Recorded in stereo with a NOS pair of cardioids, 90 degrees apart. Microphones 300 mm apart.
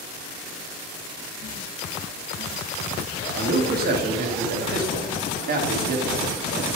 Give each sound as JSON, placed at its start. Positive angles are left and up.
{"t": 3.3, "sound": "a man speaking", "azimuth_deg": -30, "distance_m": 1.6}